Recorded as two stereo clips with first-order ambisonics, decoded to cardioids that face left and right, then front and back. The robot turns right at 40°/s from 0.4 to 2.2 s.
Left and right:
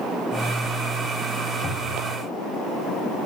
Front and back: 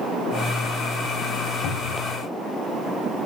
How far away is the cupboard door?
About 4 m.